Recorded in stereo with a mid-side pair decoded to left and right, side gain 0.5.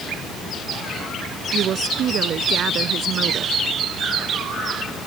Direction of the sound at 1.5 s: 55° right.